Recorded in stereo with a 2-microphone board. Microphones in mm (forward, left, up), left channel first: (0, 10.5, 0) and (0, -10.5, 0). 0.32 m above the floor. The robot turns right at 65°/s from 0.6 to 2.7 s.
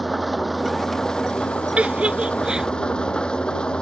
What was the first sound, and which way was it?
An engine running, straight ahead.